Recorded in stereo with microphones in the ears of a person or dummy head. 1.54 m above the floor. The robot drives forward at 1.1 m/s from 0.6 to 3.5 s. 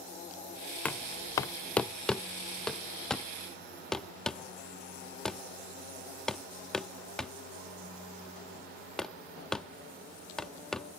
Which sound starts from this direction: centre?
Knocking, at 0.8 s.